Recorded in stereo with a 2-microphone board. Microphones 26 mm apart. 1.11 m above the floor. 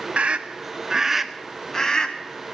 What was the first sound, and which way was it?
A scream, 55° right (ahead or behind).